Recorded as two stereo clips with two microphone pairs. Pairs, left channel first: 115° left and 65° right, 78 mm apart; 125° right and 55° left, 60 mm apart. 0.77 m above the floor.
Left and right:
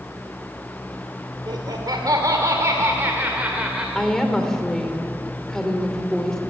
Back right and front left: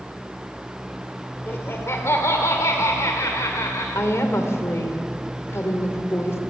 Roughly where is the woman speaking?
Behind.